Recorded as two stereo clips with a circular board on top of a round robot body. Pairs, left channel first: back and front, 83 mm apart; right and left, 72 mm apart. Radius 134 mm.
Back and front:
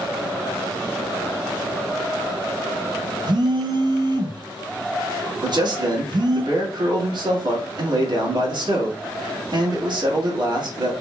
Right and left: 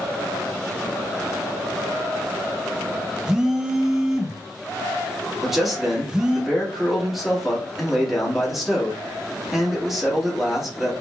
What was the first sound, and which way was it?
A phone buzzing, 10° left.